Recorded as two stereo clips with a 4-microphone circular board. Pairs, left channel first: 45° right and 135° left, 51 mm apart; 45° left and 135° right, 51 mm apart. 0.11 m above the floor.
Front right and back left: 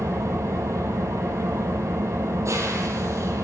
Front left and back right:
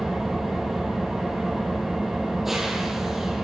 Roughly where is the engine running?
Behind left.